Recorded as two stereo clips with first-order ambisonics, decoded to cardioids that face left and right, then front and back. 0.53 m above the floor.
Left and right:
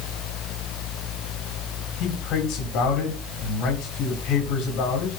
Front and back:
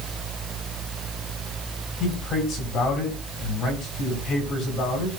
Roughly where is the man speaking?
Ahead left.